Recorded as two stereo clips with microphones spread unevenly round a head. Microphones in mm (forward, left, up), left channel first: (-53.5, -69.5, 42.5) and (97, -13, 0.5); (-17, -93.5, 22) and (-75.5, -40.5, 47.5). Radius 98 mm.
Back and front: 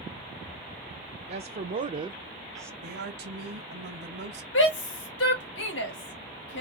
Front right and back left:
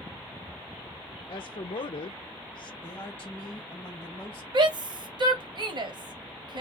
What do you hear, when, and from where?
1.3 s a woman speaking: 5° right, 0.7 m; by 2.7 s 75° right, 0.5 m
2.8 s a woman speaking: 25° left, 1.2 m
4.5 s a shout: 165° left, 1.3 m